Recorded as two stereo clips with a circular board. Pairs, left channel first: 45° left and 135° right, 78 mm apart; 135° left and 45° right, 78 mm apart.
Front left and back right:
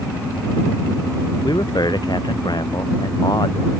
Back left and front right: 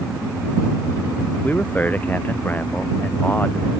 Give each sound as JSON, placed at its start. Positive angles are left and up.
{"t": 1.4, "sound": "a man speaking", "azimuth_deg": 70}